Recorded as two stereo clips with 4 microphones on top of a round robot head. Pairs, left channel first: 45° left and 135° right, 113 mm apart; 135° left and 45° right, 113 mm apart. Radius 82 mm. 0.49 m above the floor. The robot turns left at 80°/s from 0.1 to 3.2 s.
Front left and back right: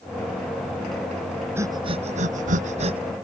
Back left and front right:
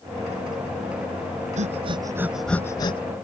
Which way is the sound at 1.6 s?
65° right.